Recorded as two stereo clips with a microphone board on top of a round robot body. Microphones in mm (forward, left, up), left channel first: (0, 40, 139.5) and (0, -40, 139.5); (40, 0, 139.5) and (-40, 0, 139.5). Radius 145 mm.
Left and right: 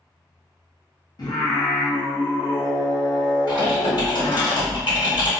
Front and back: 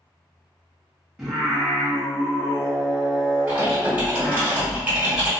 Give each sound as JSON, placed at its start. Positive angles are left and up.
{"t": 1.2, "sound": "singing", "azimuth_deg": 95, "distance_m": 1.0}
{"t": 3.5, "sound": "typing on a keyboard", "azimuth_deg": 110, "distance_m": 1.5}